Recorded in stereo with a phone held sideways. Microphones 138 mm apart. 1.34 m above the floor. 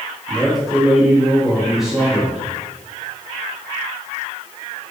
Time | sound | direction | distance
0.3 | a man speaking | 5° right (ahead or behind) | 2.5 m